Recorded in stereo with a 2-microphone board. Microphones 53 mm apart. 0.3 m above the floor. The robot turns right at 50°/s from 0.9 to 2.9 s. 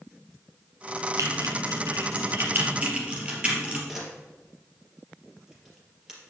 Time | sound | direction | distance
1.2 | typing on a keyboard | 75° right (ahead or behind) | 3 m
3.9 | a camera shutter | 10° right (ahead or behind) | 3.5 m